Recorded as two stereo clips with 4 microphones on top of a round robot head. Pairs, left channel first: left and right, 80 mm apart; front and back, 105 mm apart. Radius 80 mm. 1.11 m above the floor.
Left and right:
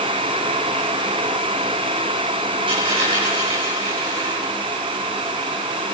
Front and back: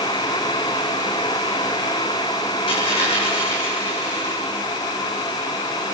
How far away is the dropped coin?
About 9.5 m.